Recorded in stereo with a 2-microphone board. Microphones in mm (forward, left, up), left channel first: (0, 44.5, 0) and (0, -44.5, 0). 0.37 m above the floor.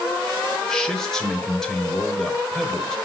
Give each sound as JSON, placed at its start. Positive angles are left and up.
{"t": 0.7, "sound": "a man speaking", "side_deg": 5, "distance_m": 1.2}